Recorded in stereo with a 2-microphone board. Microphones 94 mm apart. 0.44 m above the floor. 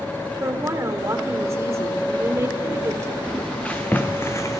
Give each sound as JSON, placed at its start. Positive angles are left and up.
{"t": 0.4, "sound": "a woman speaking", "side_deg": -30, "distance_m": 1.5}
{"t": 3.2, "sound": "footsteps", "side_deg": 10, "distance_m": 1.9}